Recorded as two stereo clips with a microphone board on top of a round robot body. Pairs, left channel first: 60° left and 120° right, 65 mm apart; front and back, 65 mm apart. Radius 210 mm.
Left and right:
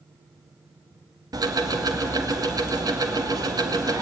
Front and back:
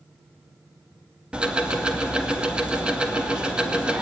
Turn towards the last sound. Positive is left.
turn(degrees=-105)